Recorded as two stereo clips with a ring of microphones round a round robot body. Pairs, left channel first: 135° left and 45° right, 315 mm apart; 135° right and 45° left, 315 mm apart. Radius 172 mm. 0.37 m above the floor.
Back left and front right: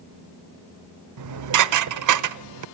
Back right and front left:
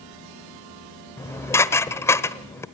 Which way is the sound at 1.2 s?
55° right.